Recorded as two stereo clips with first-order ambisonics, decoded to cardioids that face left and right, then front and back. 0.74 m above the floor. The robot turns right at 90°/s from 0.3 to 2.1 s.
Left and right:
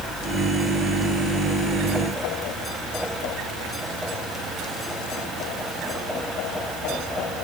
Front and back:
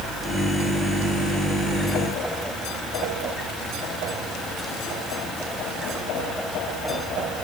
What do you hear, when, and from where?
Only background noise.